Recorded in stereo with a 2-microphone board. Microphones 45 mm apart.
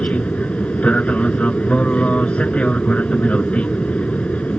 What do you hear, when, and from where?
0.0 s an aircraft: 25° left (ahead or behind)